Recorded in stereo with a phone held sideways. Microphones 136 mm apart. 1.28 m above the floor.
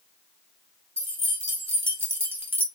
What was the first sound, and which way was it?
Keys jangling, 15° right (ahead or behind).